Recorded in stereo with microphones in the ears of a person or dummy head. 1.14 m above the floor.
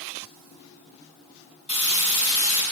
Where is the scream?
I don't hear a scream.